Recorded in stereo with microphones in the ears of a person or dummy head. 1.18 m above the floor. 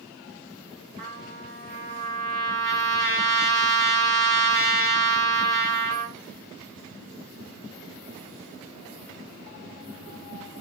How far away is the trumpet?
About 1.6 m.